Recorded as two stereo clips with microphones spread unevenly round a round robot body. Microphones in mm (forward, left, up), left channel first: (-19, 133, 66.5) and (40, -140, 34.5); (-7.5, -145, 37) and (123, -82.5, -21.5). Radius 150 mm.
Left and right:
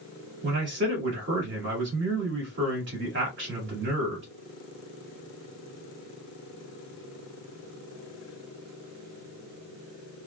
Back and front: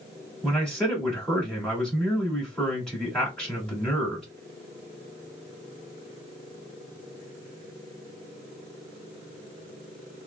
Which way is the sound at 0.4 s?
50° right.